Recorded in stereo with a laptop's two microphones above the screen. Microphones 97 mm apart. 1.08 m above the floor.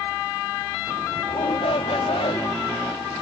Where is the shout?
75° left (ahead or behind).